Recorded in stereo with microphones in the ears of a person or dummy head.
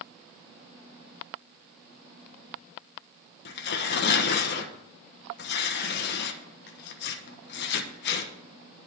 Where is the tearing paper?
65° left (ahead or behind), 1.2 m.